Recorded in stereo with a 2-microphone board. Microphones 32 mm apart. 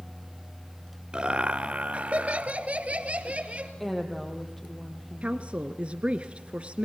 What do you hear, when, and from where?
1.1 s laughter: 30° right (ahead or behind), 1.3 m; by 3.7 s 40° right (ahead or behind), 2 m
3.8 s a woman speaking: 10° left (ahead or behind), 4 m
5.2 s a woman speaking: 35° right (ahead or behind), 1.4 m